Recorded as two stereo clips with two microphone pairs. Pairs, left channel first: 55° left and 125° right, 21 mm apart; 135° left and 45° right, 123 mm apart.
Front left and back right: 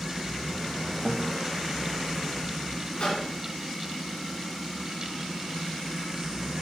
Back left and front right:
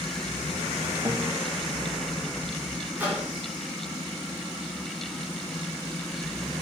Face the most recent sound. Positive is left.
turn(degrees=25)